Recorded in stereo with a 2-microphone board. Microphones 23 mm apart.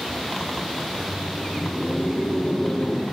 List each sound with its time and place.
0.8 s laughter: 60° left (ahead or behind), 7.5 m